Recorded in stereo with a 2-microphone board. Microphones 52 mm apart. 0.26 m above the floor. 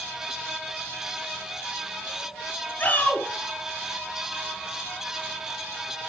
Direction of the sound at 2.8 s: 40° left (ahead or behind).